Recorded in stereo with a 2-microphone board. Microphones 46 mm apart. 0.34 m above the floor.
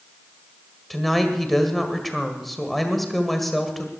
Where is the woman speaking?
Centre (ahead or behind), 1.6 m.